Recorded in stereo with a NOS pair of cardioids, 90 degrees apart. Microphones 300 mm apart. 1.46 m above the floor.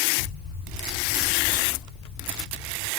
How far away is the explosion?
About 0.6 m.